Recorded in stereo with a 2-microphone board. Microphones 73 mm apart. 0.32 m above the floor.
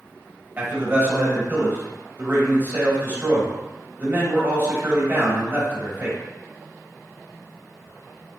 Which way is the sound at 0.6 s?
30° right (ahead or behind).